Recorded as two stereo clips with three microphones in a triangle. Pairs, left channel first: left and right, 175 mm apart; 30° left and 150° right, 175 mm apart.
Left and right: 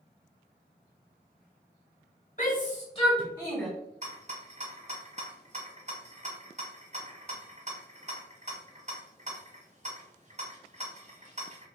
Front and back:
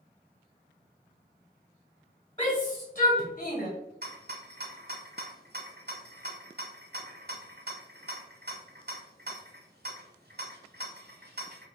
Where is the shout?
85° left, 1.2 m; by 3.7 s straight ahead, 1.8 m.